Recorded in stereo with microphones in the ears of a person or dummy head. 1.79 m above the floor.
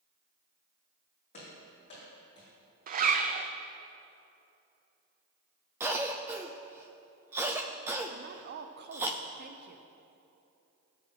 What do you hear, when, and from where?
1.3 s running footsteps: 40° left (ahead or behind), 4 m; by 2.5 s 30° left (ahead or behind), 3.5 m
2.9 s a zipper: 45° right (ahead or behind), 0.5 m
5.8 s a cough: 10° right (ahead or behind), 0.5 m
8.1 s a woman speaking: 55° right (ahead or behind), 0.8 m